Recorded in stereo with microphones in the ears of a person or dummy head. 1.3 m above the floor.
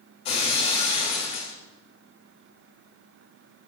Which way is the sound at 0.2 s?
30° left (ahead or behind).